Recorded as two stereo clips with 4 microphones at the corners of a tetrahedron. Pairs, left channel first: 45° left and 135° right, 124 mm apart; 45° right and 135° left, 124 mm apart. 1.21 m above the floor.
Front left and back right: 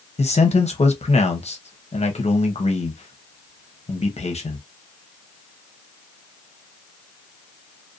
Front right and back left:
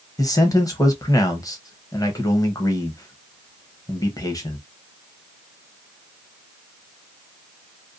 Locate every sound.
0.2 s a man speaking: 15° left, 0.7 m